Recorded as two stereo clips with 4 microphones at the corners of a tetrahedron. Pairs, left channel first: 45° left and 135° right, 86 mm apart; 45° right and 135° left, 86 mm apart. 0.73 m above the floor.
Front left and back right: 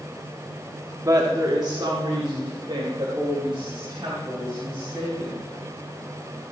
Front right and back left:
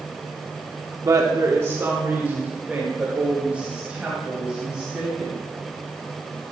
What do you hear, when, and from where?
1.0 s a woman speaking: straight behind, 1.5 m; by 5.5 s 145° right, 5.5 m